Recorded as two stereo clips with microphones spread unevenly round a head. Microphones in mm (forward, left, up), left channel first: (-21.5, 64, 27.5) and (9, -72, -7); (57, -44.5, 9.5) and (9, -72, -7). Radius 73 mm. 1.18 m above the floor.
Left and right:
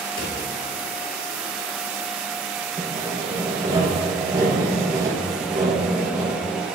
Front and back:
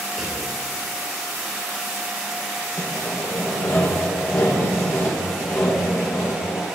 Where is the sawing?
15° right, 1.7 m.